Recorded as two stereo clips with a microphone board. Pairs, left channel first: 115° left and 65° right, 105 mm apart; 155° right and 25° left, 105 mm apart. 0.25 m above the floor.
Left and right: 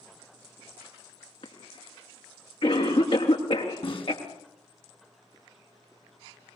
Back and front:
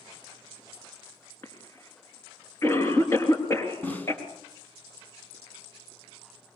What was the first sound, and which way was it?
A cough, 140° left.